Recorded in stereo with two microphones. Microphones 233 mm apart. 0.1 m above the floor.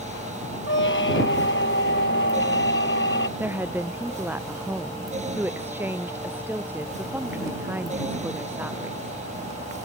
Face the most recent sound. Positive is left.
turn(degrees=-10)  # may be behind; listen again after turning